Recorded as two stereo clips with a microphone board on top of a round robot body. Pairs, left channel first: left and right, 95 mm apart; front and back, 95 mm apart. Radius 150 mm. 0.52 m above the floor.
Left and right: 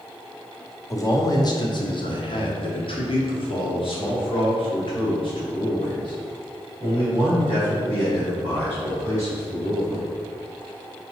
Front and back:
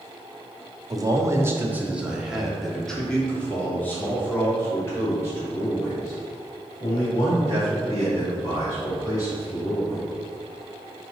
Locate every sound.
0.9 s a man speaking: 140° left, 1.2 m; by 10.1 s 50° left, 5 m